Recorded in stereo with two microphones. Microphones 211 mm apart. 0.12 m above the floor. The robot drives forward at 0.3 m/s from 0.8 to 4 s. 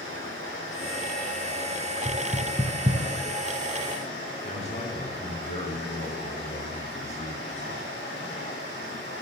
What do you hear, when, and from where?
0.0 s running water: 65° left (ahead or behind), 3 m; by 9.2 s 55° left (ahead or behind), 3.5 m
2.0 s knocking: 25° right (ahead or behind), 1.0 m
4.4 s a man speaking: 30° left (ahead or behind), 1.9 m